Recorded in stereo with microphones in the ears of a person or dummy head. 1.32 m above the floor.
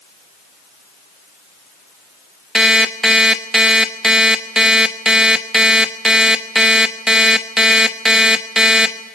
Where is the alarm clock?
5° right (ahead or behind), 1.0 m.